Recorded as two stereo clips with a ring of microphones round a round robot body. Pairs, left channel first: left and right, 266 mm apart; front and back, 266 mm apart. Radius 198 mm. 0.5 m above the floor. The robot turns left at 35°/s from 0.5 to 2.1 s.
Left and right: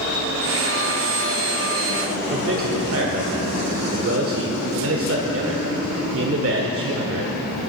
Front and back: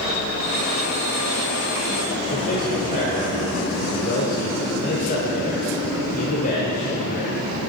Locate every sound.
2.3 s a man speaking: 60° right, 1.6 m